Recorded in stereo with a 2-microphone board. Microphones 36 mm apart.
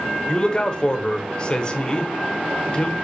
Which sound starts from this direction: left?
A man speaking, at 0.3 s.